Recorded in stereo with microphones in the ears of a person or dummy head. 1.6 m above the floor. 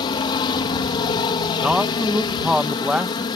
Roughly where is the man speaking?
Centre.